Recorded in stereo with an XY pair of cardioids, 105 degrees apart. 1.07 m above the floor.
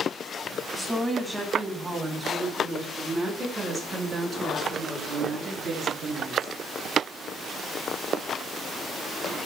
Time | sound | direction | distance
0.7 | a woman speaking | 5° right | 3.5 m